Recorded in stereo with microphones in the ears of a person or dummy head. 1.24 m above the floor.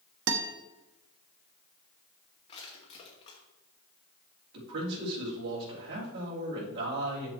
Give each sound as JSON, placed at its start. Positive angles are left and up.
{"t": 0.3, "sound": "a guitar", "side_deg": -70, "distance_m": 1.2}
{"t": 2.5, "sound": "crushing", "side_deg": 25, "distance_m": 2.0}
{"t": 4.5, "sound": "a man speaking", "side_deg": -60, "distance_m": 4.0}